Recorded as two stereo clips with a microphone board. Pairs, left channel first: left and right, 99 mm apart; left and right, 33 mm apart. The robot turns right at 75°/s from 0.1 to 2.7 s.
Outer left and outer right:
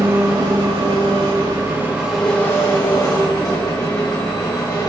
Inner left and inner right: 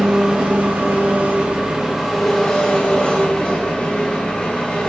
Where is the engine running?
155° right, 2 m; by 4.9 s 40° left, 2 m.